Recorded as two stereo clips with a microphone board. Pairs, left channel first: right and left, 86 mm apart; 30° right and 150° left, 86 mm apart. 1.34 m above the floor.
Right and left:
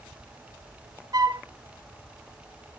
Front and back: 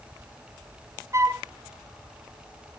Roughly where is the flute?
Left.